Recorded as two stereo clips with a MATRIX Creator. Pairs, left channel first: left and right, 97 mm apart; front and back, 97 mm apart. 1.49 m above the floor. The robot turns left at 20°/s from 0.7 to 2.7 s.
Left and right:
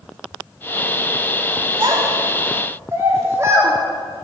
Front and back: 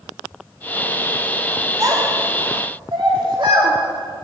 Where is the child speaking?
130° right, 2 m; by 3.7 s 150° right, 2 m.